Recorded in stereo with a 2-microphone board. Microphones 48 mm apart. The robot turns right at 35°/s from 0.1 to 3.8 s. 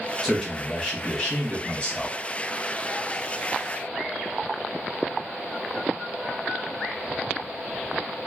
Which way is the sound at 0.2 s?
Straight ahead.